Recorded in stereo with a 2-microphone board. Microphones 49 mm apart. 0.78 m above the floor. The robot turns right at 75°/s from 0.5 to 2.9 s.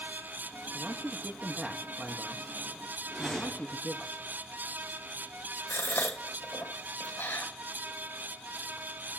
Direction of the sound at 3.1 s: Centre (ahead or behind).